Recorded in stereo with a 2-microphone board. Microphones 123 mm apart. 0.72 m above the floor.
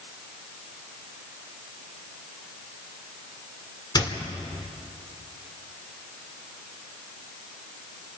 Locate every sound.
4.0 s a squeak: 35° left (ahead or behind), 1.8 m